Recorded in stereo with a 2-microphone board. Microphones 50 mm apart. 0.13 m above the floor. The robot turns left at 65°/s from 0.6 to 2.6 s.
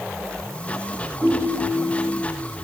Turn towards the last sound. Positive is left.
turn(degrees=-50)